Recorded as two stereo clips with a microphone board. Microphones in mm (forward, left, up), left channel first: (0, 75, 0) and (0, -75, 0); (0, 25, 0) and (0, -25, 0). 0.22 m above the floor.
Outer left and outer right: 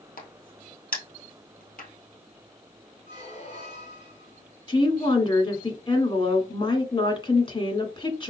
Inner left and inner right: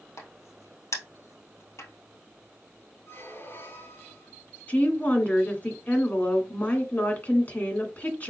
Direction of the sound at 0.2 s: 75° left (ahead or behind).